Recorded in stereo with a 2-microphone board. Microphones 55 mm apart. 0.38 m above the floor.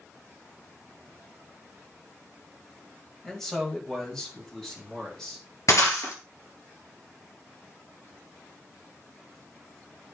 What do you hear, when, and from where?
3.2 s a man speaking: 5° left (ahead or behind), 2.0 m; by 5.5 s 10° left (ahead or behind), 4 m
5.7 s breaking glass: 65° left (ahead or behind), 2 m